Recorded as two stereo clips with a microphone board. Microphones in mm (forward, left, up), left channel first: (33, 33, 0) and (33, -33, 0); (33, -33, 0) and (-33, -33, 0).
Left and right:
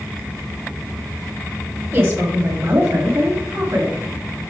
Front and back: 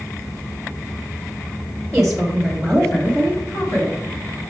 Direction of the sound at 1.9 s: 110° right.